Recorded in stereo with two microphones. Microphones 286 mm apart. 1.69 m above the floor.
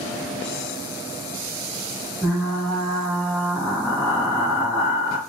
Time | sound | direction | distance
2.2 | frying | 5° left (ahead or behind) | 1.6 m